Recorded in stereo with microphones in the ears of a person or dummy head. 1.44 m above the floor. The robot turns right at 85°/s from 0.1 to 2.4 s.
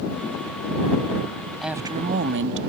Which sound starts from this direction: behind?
A woman speaking, at 1.6 s.